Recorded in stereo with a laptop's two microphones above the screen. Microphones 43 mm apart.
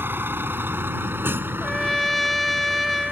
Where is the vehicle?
60° right (ahead or behind).